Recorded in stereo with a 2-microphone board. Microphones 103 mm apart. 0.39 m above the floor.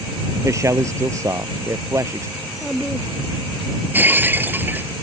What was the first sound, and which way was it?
A man speaking, 30° right (ahead or behind).